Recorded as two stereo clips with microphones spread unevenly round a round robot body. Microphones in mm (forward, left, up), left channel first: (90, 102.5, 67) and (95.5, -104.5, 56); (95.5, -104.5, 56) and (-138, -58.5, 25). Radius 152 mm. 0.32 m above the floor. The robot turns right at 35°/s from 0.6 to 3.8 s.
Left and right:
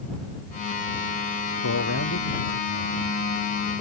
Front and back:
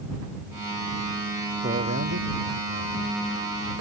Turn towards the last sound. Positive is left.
turn(degrees=175)